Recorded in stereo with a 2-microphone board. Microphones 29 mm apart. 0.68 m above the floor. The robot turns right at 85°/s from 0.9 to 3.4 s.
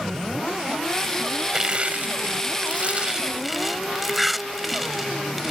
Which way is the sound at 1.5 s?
25° right (ahead or behind).